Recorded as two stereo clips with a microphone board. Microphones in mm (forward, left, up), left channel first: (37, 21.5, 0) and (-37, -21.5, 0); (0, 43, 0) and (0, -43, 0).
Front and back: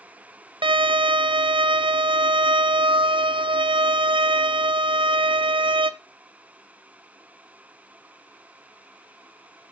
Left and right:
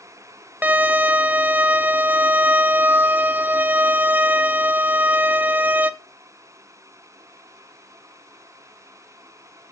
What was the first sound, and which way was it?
A violin, 160° right.